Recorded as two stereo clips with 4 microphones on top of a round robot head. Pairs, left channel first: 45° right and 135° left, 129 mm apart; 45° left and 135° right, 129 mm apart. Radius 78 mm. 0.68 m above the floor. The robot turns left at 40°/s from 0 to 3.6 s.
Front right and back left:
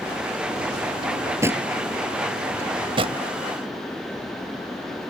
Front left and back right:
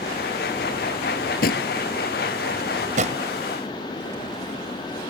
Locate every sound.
1.0 s a drawer: 85° left; by 1.7 s 55° left
2.5 s a drawer: 155° right; by 3.2 s straight behind